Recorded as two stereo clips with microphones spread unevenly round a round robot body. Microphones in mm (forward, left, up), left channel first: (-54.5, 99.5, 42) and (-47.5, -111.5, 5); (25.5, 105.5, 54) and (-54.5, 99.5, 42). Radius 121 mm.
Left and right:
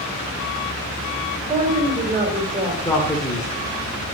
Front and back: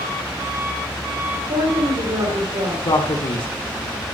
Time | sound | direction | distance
1.5 | a woman speaking | 150° right | 3 m
2.9 | a man speaking | 10° left | 1.9 m